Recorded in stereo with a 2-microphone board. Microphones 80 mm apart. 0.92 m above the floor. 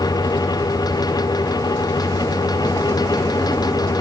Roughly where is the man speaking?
I don't hear a man speaking.